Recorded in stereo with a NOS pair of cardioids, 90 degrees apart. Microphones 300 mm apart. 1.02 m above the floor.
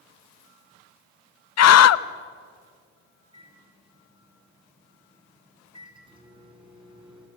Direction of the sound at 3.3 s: 15° right.